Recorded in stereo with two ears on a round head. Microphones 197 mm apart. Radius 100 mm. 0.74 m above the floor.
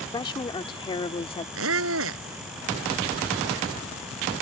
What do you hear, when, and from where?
0.1 s a woman speaking: 20° left (ahead or behind); by 1.4 s 25° left (ahead or behind)
1.6 s a squeak: 60° right (ahead or behind)